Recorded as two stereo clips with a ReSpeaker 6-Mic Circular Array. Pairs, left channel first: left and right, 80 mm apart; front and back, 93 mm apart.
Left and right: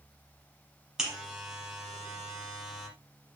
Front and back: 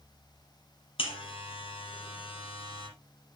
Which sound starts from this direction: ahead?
A buzzer, at 1.0 s.